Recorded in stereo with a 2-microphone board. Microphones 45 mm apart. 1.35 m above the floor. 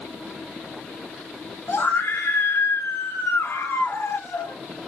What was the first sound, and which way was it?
A scream, 75° left (ahead or behind).